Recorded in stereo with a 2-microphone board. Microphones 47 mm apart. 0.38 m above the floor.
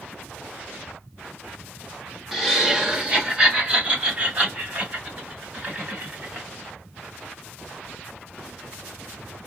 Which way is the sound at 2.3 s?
5° right (ahead or behind).